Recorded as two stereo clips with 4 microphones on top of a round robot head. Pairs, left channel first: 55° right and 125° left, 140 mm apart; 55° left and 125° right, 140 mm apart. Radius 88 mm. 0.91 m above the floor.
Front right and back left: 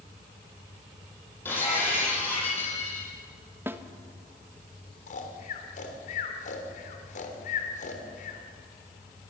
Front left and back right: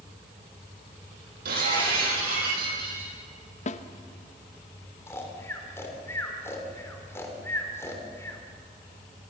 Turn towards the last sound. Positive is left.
turn(degrees=-20)